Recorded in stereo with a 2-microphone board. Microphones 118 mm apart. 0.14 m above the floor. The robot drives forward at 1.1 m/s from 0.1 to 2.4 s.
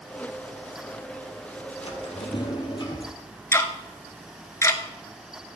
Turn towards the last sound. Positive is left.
turn(degrees=25)  # may be behind; listen again after turning